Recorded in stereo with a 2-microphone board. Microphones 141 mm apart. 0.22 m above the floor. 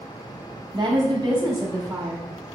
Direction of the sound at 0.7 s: 35° right (ahead or behind).